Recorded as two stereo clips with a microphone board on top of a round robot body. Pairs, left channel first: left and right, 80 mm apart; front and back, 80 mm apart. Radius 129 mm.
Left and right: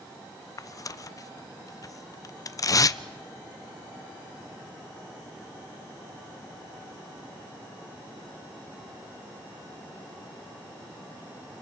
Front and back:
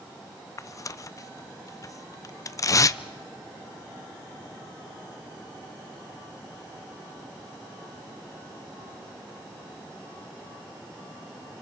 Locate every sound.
0.6 s tearing paper: 45° left, 0.5 m